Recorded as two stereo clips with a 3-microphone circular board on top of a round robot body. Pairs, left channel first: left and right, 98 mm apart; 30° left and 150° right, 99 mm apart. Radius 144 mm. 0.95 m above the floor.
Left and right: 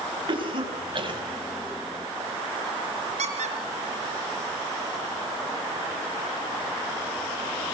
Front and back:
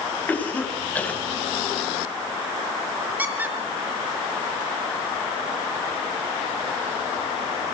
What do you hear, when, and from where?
0.3 s a cough: 45° right, 6.5 m
3.2 s a squeak: 75° right, 4 m